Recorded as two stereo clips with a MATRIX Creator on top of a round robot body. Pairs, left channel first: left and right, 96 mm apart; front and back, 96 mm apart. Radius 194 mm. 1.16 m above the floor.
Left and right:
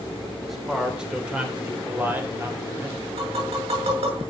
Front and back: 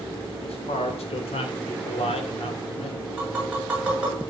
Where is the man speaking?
Straight ahead, 4 m; by 3.1 s 25° right, 5 m.